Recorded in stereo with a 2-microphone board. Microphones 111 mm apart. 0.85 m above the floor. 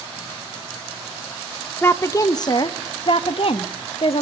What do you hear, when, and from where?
1.8 s a woman speaking: 20° left (ahead or behind), 0.8 m; by 4.2 s 65° left (ahead or behind), 1.7 m